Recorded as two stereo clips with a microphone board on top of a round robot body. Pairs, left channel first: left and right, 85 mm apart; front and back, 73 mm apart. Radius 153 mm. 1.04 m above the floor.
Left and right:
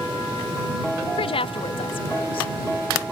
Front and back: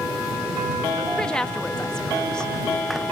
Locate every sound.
1.2 s a woman speaking: 80° left